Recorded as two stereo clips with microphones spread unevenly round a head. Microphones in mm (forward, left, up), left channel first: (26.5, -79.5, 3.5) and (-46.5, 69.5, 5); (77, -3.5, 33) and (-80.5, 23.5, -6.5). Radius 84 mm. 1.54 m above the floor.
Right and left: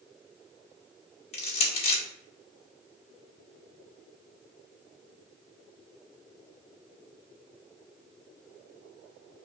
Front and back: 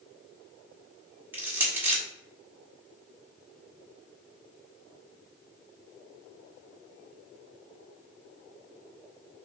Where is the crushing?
100° right, 1.3 m.